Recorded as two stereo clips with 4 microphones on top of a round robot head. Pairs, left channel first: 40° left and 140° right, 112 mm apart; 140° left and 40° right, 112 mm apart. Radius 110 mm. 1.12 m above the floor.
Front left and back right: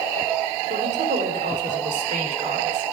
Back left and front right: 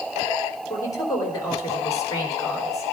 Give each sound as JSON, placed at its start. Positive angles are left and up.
{"t": 0.7, "sound": "a woman speaking", "azimuth_deg": -160, "distance_m": 3.0}